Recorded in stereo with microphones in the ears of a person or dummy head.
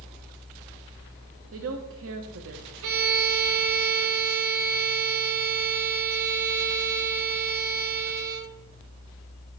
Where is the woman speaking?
60° right (ahead or behind), 0.7 m.